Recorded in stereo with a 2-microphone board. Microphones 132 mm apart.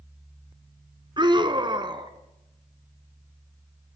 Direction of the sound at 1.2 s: 35° right (ahead or behind).